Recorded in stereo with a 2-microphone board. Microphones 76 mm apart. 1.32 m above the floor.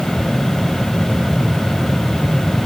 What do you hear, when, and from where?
Only background noise.